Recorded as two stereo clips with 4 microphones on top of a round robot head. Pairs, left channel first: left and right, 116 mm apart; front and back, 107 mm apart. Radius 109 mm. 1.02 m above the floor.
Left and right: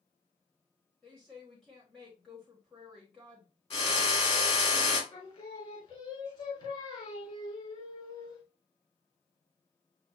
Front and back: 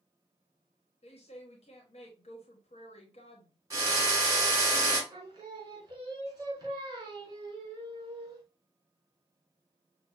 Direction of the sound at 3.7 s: 125° left.